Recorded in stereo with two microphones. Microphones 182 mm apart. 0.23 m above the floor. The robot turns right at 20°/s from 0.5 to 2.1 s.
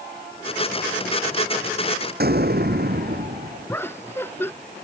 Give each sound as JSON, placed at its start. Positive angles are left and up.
{"t": 2.2, "sound": "an explosion", "side_deg": -60}
{"t": 3.7, "sound": "laughter", "side_deg": 10}